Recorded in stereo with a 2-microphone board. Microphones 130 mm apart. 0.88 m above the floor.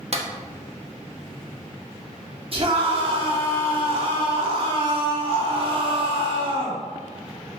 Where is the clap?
50° right (ahead or behind), 1.2 m.